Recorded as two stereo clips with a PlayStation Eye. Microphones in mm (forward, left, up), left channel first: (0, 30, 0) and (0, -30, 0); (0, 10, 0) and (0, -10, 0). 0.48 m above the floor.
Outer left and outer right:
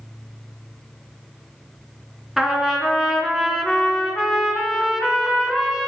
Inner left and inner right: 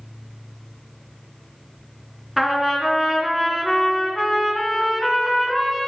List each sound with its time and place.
2.4 s a trumpet: 5° right (ahead or behind), 2.5 m